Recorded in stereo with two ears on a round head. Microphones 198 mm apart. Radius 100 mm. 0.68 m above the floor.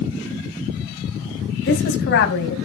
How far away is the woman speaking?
About 4.5 m.